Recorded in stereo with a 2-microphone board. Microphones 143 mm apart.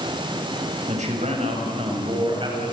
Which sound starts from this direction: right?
A man speaking, at 0.9 s.